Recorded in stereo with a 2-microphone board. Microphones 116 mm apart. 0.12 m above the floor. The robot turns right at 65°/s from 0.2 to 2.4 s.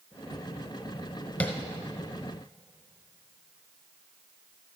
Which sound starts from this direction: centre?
Tapping, at 1.4 s.